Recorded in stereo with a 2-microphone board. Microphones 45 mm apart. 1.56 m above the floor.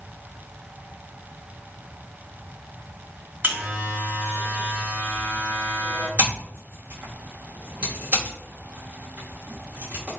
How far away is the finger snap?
No finger snap in this recording.